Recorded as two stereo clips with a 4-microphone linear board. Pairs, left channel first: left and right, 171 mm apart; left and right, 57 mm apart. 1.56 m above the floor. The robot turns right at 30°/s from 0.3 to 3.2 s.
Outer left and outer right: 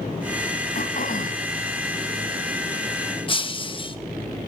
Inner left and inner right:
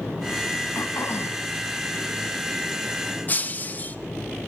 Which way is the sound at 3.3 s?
30° left (ahead or behind).